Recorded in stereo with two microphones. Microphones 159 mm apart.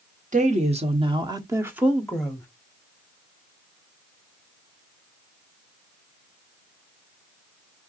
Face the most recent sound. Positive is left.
turn(degrees=10)  # may be behind; listen again after turning